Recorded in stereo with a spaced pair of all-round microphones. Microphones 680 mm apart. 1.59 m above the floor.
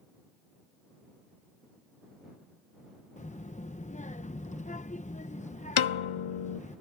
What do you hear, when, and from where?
3.2 s a child speaking: 10° left (ahead or behind)
5.8 s a piano: 50° left (ahead or behind)